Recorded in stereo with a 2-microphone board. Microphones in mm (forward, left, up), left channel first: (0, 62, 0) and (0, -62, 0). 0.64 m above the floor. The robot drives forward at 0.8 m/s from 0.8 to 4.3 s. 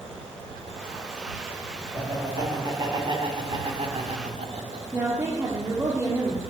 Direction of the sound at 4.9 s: 25° right (ahead or behind).